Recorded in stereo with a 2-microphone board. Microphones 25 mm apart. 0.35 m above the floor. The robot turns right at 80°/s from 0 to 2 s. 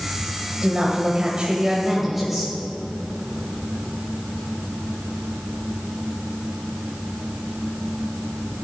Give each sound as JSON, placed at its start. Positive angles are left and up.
{"t": 0.6, "sound": "a woman speaking", "azimuth_deg": -125, "distance_m": 1.7}